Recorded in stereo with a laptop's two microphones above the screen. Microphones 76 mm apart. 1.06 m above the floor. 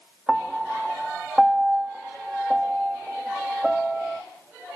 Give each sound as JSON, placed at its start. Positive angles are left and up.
{"t": 0.3, "sound": "a piano", "side_deg": 0, "distance_m": 0.6}